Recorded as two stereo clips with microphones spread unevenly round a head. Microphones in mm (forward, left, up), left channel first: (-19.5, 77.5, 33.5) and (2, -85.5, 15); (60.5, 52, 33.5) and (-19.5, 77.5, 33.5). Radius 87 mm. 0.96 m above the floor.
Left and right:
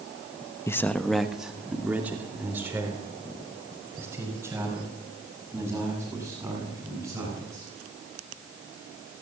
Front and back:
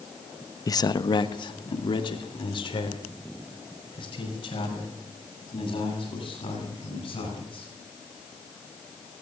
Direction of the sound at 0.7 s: 20° left.